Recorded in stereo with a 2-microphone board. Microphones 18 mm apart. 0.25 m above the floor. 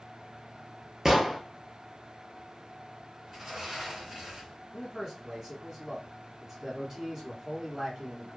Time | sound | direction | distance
1.1 | an explosion | 20° right (ahead or behind) | 0.8 m
3.3 | a sliding door | 40° right (ahead or behind) | 2 m
4.7 | a man speaking | 30° right (ahead or behind) | 1.6 m